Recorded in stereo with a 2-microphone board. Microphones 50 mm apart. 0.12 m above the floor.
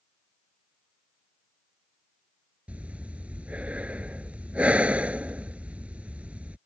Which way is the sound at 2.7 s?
30° right (ahead or behind).